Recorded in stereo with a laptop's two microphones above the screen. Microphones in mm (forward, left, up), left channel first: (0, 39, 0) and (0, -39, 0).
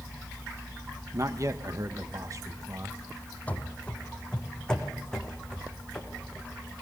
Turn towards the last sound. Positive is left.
turn(degrees=5)  # may be behind; listen again after turning